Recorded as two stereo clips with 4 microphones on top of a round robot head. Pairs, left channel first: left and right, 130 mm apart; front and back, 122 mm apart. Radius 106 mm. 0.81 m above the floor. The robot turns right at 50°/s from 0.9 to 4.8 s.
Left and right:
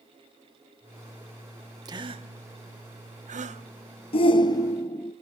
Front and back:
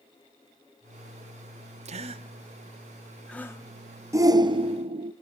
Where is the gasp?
150° right, 1.4 m; by 3.6 s 65° right, 1.4 m.